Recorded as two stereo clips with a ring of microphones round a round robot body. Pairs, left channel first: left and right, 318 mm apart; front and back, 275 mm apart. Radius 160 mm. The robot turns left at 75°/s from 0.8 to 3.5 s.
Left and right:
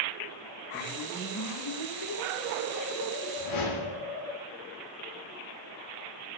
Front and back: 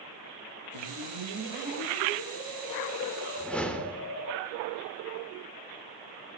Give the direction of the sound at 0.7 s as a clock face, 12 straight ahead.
5 o'clock.